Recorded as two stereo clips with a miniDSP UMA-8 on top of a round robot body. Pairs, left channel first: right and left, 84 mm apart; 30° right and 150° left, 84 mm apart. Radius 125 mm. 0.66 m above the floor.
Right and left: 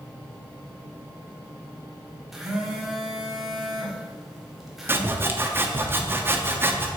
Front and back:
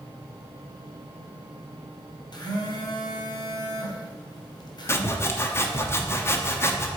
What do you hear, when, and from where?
2.3 s a phone buzzing: 5° left, 1.4 m
4.9 s sawing: 30° left, 1.0 m